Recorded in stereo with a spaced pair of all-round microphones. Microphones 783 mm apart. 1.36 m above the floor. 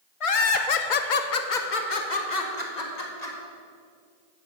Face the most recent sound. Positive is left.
turn(degrees=55)  # may be behind; listen again after turning